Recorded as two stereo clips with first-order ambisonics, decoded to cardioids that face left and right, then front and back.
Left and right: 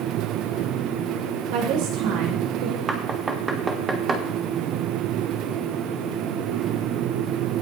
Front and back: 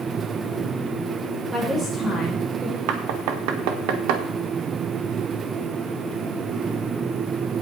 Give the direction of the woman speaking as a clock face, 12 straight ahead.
3 o'clock.